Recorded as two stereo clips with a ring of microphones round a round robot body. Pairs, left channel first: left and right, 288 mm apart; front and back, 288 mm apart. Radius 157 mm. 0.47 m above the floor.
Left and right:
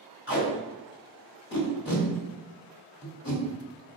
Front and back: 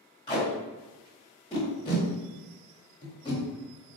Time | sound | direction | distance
0.3 | tape being pulled | 65° left | 1.6 m